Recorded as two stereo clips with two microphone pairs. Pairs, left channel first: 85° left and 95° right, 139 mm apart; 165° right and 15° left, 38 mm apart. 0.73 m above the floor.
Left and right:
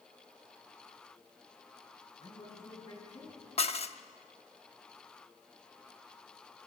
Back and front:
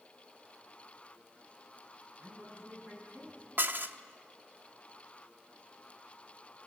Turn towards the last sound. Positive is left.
turn(degrees=45)